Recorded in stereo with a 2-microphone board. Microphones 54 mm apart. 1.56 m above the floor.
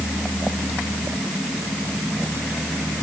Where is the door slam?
I don't hear a door slam.